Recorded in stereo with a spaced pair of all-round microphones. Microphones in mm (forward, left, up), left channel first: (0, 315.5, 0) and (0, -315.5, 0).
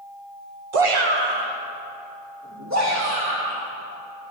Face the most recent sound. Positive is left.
turn(degrees=-20)  # may be behind; listen again after turning